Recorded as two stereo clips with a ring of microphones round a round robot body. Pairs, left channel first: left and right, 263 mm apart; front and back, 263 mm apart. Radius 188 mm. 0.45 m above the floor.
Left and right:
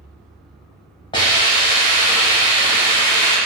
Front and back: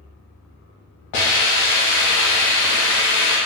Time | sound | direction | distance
1.1 | a hiss | 15° left | 1.2 m